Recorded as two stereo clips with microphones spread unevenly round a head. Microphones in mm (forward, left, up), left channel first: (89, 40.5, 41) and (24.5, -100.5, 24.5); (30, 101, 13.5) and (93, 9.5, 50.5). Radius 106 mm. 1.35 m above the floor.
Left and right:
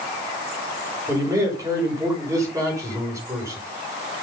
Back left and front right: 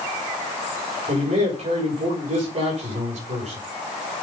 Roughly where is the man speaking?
Ahead right.